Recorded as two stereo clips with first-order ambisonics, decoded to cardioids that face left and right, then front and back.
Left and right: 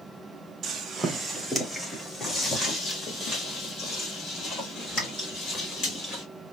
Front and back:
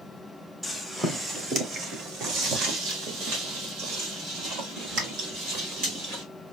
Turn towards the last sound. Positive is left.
turn(degrees=140)